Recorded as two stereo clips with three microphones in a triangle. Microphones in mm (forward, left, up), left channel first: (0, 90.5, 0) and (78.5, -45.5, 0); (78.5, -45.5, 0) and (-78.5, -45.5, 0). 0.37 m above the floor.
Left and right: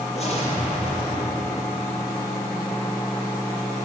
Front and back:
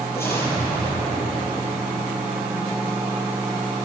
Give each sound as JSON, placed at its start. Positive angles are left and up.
{"t": 0.1, "sound": "an explosion", "azimuth_deg": 75, "distance_m": 7.5}